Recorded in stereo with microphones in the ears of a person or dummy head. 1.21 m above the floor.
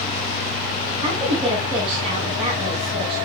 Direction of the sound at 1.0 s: 30° right (ahead or behind).